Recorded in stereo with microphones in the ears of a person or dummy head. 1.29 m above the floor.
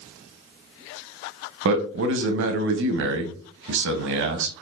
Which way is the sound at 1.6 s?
65° right (ahead or behind).